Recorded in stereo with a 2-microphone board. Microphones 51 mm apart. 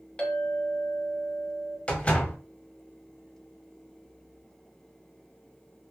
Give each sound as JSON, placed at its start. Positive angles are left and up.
{"t": 0.2, "sound": "a clink", "side_deg": 20, "distance_m": 0.9}
{"t": 1.9, "sound": "a door slam", "side_deg": 25, "distance_m": 0.8}